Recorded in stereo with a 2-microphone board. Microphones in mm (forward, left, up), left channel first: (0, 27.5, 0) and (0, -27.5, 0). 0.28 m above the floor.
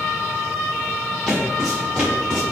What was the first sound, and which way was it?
Footsteps, centre (ahead or behind).